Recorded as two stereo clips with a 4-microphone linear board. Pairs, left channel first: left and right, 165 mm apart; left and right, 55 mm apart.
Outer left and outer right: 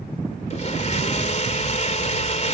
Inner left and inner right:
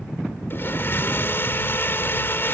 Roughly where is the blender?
Left.